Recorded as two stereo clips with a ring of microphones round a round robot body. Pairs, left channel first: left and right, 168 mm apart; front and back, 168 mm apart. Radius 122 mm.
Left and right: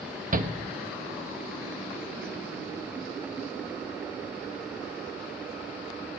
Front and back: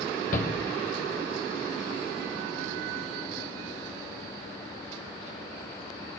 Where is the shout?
50° right, 1.3 m.